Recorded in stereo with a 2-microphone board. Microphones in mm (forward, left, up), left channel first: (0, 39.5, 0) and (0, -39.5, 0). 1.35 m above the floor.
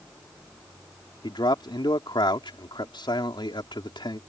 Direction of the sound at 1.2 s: 75° left (ahead or behind).